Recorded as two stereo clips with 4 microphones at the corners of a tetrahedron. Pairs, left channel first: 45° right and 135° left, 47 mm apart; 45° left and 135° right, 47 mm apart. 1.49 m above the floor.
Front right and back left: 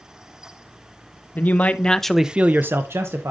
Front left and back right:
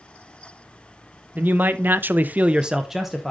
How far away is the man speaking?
About 0.9 m.